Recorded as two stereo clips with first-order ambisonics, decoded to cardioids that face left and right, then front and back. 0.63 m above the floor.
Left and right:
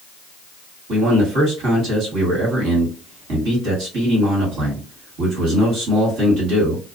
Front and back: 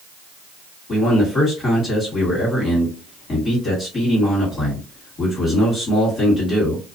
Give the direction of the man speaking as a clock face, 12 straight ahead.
2 o'clock.